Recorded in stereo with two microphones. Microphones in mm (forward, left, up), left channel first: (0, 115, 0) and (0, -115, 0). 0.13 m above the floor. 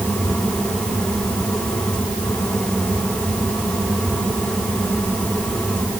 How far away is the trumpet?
No trumpet in this recording.